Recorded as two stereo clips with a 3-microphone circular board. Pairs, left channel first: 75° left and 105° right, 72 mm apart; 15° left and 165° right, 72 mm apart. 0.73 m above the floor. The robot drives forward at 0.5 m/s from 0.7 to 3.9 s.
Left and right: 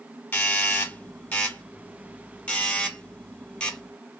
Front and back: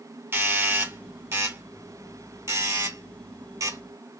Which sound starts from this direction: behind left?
A doorbell, at 0.3 s.